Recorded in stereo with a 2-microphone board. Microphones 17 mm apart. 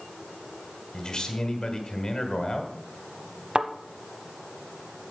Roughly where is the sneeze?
No sneeze in this recording.